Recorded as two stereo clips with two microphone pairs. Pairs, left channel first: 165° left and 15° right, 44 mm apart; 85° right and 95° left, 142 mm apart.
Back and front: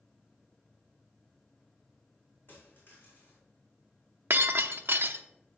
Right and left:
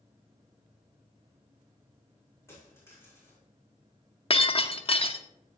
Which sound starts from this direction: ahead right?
Breaking glass, at 4.3 s.